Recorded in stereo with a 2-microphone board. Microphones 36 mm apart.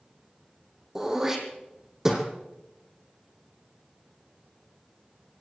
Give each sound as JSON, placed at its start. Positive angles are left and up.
{"t": 0.9, "sound": "throat clearing", "side_deg": -15, "distance_m": 3.0}